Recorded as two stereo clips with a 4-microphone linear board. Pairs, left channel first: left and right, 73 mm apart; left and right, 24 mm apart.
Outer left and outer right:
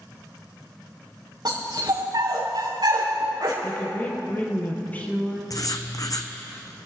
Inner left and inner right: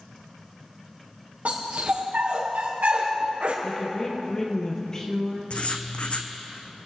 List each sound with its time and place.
1.4 s a dog barking: 70° right (ahead or behind), 5 m
3.6 s a woman speaking: 25° left (ahead or behind), 3.5 m
5.5 s writing: 55° left (ahead or behind), 1.4 m